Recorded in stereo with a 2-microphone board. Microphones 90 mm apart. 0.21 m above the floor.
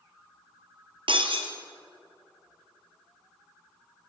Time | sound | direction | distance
1.1 | breaking glass | 70° right (ahead or behind) | 2.5 m